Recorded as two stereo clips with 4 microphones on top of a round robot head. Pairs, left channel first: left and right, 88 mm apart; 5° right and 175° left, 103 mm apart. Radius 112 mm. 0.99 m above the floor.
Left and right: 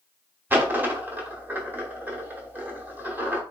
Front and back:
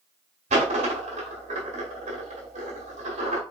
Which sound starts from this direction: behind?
A dropped coin, at 0.5 s.